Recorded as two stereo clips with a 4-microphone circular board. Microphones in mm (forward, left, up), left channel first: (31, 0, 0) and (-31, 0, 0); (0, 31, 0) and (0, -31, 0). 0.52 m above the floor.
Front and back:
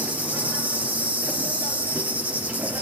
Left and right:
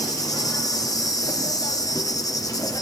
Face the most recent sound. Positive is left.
turn(degrees=115)